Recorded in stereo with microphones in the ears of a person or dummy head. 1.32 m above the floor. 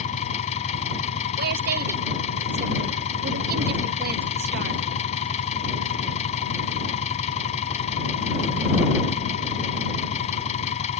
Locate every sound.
0.0 s an engine running: 40° left (ahead or behind)
1.4 s a woman speaking: 50° right (ahead or behind)